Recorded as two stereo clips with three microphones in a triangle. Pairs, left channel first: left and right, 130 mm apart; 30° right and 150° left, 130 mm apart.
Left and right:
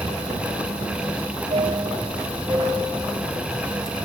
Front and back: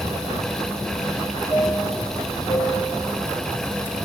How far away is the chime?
About 4 m.